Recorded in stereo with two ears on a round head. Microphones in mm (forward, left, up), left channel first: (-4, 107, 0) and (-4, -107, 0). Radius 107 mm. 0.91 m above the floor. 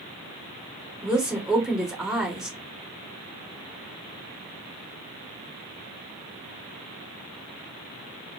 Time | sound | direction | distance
1.0 | a woman speaking | centre (ahead or behind) | 2.5 m